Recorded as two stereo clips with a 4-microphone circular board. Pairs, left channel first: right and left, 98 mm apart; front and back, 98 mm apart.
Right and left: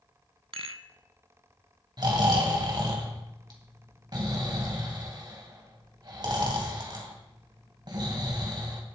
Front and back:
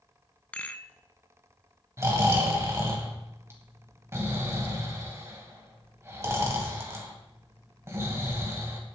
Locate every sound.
0.5 s a rattle: 75° left, 0.5 m
2.0 s snoring: 125° left, 2.5 m